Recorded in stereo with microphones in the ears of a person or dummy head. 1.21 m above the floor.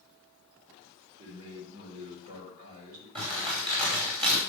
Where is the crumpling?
35° right (ahead or behind), 4.5 m.